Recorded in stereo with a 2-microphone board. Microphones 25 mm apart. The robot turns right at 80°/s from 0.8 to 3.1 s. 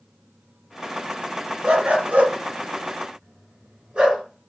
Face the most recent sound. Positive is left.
turn(degrees=-40)  # may be behind; listen again after turning